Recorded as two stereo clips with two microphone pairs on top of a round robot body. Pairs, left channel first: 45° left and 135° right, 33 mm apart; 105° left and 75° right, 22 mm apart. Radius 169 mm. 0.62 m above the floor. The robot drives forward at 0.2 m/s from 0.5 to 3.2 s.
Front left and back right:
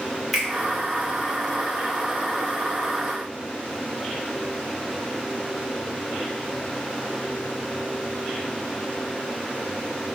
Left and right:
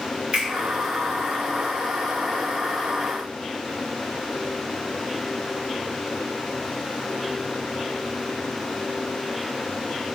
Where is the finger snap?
45° right, 1.8 m.